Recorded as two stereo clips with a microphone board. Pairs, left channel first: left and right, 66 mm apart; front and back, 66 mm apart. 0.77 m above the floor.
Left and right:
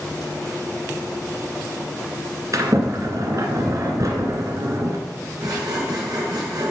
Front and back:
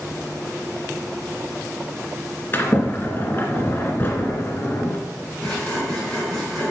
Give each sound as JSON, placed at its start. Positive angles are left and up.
{"t": 2.5, "sound": "a sliding door", "azimuth_deg": -55, "distance_m": 1.9}
{"t": 5.4, "sound": "sawing", "azimuth_deg": -80, "distance_m": 4.5}